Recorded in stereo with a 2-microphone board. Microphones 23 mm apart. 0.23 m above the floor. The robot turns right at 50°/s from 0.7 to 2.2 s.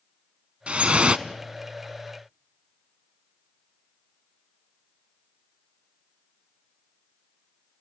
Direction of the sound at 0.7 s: 65° right (ahead or behind).